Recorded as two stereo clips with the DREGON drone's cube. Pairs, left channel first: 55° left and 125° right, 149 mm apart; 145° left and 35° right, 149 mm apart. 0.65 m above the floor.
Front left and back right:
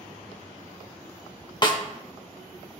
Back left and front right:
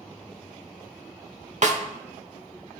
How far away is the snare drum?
About 0.9 m.